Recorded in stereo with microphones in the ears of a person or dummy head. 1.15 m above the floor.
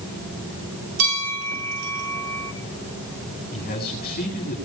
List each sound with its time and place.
1.0 s a bell: 85° right, 4.5 m
3.5 s a man speaking: 50° left (ahead or behind), 8 m